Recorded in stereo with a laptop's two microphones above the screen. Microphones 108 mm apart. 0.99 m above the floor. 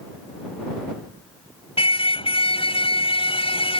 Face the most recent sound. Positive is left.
turn(degrees=60)  # may be behind; listen again after turning